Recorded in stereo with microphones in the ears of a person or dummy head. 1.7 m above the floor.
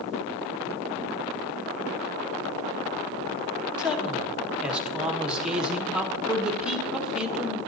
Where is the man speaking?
10° right (ahead or behind), 1.0 m.